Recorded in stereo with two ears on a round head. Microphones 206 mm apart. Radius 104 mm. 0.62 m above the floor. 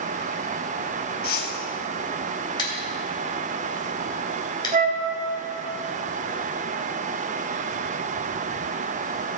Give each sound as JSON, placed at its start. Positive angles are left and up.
{"t": 1.2, "sound": "a whoosh", "side_deg": 40, "distance_m": 1.5}
{"t": 2.6, "sound": "scissors", "side_deg": 20, "distance_m": 3.0}
{"t": 4.7, "sound": "a flute", "side_deg": -30, "distance_m": 1.5}